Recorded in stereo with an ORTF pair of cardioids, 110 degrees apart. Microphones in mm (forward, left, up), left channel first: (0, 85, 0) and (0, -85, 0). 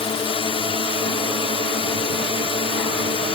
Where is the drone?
35° left.